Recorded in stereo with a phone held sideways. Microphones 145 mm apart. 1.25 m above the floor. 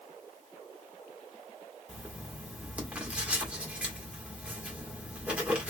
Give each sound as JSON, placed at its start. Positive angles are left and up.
{"t": 1.9, "sound": "writing", "side_deg": -10, "distance_m": 1.3}